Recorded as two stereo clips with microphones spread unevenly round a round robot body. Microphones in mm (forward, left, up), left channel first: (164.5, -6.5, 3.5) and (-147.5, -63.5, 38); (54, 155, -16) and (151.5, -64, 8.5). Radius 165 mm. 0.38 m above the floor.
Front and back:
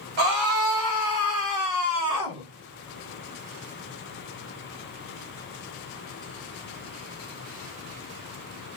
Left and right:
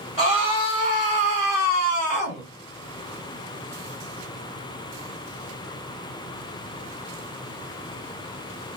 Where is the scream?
165° right, 2 m; by 2.5 s 70° left, 1.2 m.